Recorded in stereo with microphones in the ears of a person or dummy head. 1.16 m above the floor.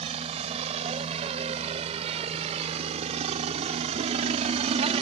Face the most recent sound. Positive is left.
turn(degrees=-35)  # may be behind; listen again after turning